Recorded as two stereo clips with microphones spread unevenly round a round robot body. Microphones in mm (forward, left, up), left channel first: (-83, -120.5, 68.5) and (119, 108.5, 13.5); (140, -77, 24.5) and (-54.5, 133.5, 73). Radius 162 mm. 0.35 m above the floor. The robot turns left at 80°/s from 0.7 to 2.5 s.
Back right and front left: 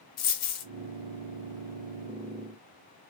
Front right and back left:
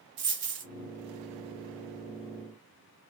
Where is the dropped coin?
175° right, 0.7 m.